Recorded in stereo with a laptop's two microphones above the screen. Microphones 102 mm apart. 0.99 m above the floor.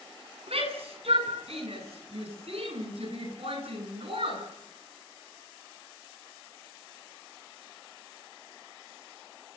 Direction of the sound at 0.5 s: 80° right.